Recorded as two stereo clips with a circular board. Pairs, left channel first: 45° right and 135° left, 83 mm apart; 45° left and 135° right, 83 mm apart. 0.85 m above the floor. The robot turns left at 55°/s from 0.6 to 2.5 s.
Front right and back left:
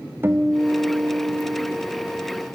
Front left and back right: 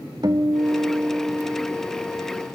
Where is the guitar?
165° right, 1.5 m; by 1.8 s 130° left, 1.5 m.